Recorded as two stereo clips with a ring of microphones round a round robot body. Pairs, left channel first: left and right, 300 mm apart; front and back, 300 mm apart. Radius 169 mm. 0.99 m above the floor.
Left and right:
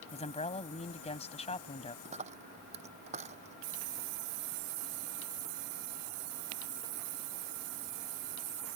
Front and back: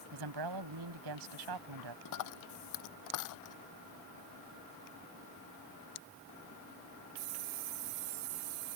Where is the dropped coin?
20° right.